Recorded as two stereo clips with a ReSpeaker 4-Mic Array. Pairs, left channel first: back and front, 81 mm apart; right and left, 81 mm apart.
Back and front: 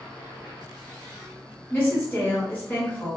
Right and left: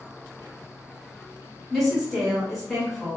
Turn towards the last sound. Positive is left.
turn(degrees=-175)